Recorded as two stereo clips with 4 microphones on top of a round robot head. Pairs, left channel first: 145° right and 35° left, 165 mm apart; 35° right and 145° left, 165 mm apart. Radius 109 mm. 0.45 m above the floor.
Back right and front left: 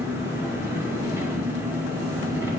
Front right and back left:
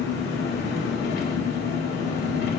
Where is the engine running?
40° right, 1.6 m.